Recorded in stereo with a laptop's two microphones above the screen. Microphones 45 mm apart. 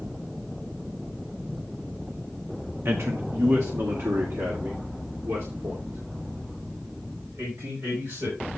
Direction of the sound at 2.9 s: 60° right (ahead or behind).